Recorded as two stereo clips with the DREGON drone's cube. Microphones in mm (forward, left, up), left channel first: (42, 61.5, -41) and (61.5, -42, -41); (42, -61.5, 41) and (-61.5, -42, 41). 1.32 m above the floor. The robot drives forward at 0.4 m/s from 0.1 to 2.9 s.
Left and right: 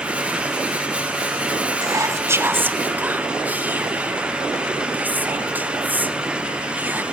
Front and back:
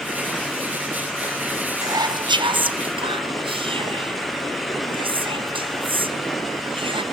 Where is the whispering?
130° right, 0.6 m; by 7.0 s 155° right, 0.9 m.